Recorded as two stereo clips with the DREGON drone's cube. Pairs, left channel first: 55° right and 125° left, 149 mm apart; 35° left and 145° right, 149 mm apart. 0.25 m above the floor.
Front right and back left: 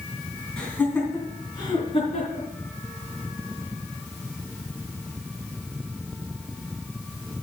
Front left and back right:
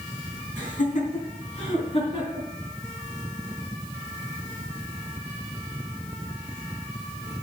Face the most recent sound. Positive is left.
turn(degrees=-15)